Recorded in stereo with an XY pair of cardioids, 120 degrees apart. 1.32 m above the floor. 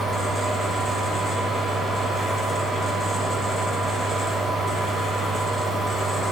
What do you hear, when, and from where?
0.0 s a fan: 25° left, 2 m